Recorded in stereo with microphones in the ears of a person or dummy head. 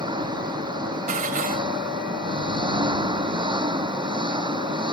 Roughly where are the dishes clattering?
Right.